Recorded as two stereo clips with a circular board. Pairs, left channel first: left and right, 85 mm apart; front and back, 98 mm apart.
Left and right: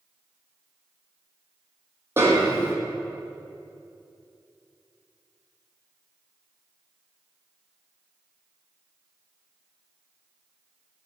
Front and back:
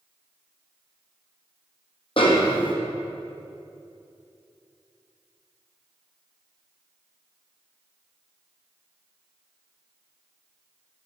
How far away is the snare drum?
About 1.5 m.